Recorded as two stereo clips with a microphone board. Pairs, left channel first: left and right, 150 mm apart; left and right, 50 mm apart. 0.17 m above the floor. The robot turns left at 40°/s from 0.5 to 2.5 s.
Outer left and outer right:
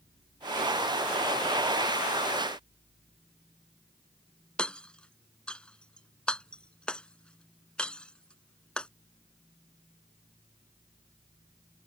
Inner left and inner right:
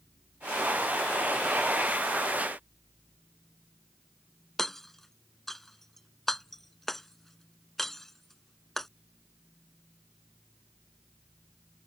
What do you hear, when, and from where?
4.6 s hammering: 5° left (ahead or behind)